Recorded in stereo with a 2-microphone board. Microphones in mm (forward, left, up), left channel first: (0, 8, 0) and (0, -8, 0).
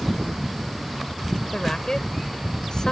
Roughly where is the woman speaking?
Left.